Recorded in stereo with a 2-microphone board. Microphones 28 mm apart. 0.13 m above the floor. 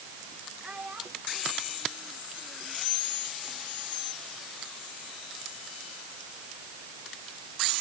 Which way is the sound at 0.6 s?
35° right (ahead or behind).